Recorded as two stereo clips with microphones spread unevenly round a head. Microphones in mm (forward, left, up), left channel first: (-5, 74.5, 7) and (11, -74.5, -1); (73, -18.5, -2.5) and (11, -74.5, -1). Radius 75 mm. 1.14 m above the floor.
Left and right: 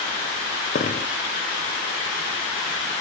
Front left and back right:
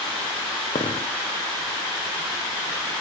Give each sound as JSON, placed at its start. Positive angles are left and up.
{"t": 0.8, "sound": "a dropped coin", "azimuth_deg": 60, "distance_m": 1.8}